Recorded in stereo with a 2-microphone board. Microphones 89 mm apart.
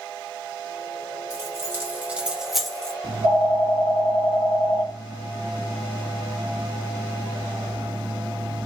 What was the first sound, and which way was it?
Keys jangling, 30° right (ahead or behind).